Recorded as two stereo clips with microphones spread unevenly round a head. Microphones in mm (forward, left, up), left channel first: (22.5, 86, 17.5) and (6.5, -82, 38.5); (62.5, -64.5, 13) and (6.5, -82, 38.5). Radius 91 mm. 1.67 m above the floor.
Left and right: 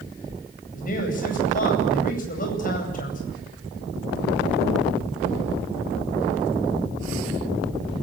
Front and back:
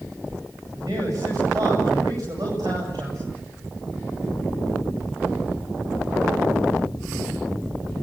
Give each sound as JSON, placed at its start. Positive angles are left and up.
{"t": 0.7, "sound": "a man speaking", "azimuth_deg": 130, "distance_m": 9.0}